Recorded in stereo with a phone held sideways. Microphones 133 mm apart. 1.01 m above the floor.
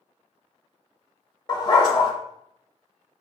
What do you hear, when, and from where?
1.5 s a dog barking: 35° left (ahead or behind), 0.9 m